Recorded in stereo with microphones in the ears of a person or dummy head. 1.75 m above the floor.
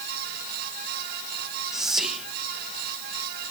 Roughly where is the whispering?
Centre.